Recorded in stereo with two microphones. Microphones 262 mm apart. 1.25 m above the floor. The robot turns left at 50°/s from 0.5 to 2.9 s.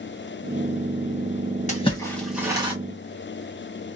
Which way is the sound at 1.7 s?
30° left (ahead or behind).